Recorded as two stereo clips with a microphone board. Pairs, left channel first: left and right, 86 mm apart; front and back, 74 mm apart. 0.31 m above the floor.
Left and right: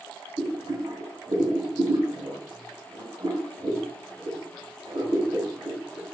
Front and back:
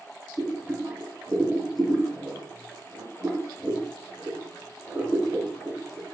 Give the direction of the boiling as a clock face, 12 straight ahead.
4 o'clock.